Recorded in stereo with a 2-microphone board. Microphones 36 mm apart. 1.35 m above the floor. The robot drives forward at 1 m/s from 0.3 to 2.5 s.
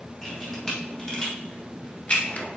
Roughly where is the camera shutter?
Centre.